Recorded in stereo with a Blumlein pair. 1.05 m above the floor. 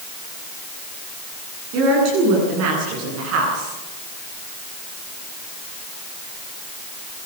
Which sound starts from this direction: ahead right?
A woman speaking, at 1.7 s.